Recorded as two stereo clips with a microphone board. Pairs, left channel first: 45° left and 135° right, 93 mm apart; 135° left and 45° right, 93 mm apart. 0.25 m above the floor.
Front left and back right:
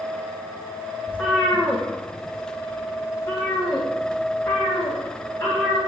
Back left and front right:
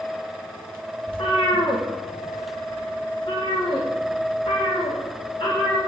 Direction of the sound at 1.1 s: 115° left.